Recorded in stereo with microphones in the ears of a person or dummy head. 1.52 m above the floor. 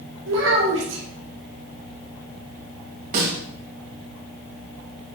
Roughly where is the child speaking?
Right.